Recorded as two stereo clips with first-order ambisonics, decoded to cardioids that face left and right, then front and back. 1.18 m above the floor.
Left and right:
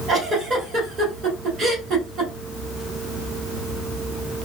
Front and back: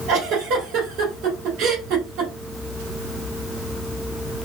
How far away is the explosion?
No explosion in this recording.